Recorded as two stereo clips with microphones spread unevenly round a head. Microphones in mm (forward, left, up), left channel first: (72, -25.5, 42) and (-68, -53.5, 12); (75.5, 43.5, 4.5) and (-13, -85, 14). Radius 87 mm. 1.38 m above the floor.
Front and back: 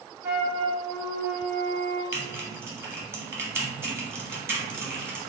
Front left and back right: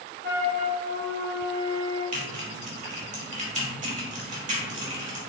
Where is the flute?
100° right, 1.7 m.